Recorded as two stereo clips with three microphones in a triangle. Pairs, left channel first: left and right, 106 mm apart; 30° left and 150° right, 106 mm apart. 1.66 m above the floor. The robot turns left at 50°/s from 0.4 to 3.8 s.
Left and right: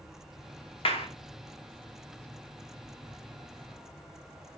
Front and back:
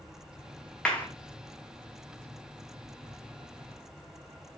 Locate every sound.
0.8 s a clap: 110° left, 0.9 m; by 1.1 s 100° left, 0.9 m